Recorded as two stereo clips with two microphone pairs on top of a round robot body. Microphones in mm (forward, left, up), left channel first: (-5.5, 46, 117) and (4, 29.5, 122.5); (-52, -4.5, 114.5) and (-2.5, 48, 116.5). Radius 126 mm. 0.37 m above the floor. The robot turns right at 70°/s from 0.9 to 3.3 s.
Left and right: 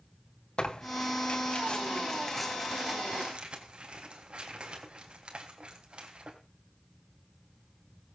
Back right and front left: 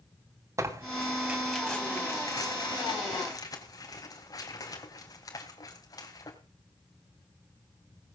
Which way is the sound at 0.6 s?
95° left.